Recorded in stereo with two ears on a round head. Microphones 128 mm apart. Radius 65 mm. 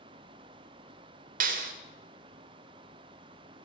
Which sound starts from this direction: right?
A clap, at 1.4 s.